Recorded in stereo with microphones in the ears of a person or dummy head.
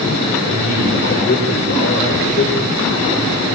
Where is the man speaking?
40° left (ahead or behind), 6 m; by 2.8 s 70° left (ahead or behind), 5 m.